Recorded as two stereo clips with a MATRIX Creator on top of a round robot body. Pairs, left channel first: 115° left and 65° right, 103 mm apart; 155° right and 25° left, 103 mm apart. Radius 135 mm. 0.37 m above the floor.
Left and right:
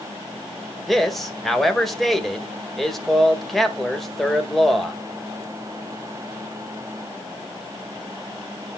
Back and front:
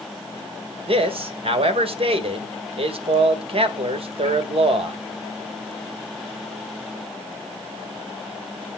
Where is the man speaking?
25° left, 1.9 m.